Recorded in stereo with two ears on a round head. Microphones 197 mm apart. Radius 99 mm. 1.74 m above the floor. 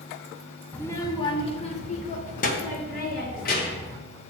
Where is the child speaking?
5° left (ahead or behind), 0.7 m; by 4.0 s 45° left (ahead or behind), 2 m.